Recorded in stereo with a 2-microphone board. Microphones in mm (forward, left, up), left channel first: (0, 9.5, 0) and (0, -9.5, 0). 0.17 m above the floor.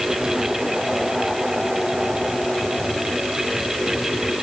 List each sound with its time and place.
Only background noise.